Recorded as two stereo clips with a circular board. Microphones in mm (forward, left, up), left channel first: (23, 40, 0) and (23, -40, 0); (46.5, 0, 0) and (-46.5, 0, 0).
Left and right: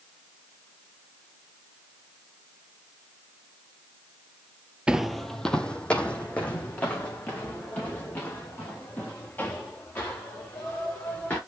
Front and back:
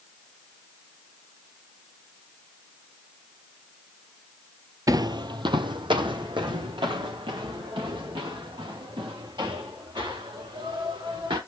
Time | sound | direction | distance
4.9 | footsteps | 165° right | 0.5 m